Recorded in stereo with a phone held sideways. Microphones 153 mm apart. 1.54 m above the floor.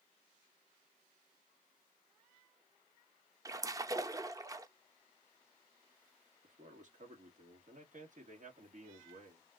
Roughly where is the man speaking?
Right.